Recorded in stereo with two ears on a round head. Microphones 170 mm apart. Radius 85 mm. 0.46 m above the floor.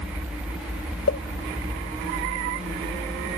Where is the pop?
65° left (ahead or behind).